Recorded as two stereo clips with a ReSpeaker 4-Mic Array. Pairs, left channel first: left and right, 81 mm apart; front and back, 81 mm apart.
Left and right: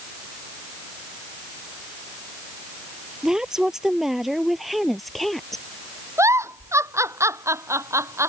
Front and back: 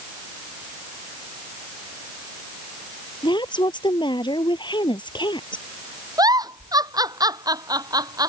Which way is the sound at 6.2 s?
145° right.